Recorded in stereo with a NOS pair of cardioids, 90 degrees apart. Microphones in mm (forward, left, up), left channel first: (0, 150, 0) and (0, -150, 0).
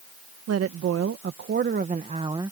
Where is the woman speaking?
60° right; by 2.5 s 10° right.